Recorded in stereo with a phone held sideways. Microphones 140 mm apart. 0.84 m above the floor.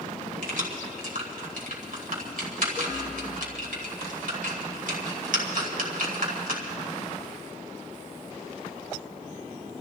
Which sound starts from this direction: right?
Keys jangling, at 0.4 s.